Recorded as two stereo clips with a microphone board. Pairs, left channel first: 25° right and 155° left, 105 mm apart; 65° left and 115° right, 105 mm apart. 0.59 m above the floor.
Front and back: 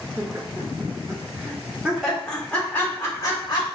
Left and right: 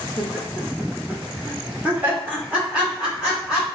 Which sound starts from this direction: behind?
Laughter, at 0.2 s.